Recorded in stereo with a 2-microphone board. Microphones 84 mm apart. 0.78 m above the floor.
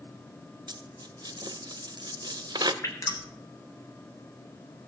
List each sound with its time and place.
0.7 s a dropped coin: 60° right (ahead or behind), 0.8 m
2.8 s dripping: 40° left (ahead or behind), 2.5 m